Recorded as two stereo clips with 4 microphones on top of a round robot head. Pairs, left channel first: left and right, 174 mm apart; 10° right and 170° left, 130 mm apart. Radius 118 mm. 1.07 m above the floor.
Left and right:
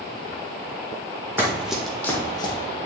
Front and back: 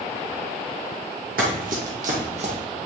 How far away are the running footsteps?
About 1.9 m.